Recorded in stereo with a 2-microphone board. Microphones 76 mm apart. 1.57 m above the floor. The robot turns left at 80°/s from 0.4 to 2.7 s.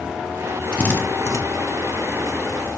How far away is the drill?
About 1.5 m.